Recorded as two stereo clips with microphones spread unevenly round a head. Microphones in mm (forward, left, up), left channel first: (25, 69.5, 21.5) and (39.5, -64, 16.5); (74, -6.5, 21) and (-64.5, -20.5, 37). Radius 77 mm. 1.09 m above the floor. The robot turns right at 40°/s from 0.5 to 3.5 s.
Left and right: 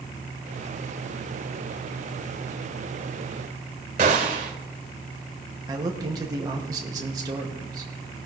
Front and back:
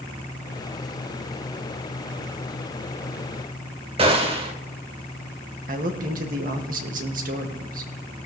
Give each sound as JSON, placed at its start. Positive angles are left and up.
{"t": 4.0, "sound": "a gunshot", "azimuth_deg": -130, "distance_m": 1.4}
{"t": 5.7, "sound": "a man speaking", "azimuth_deg": -150, "distance_m": 1.7}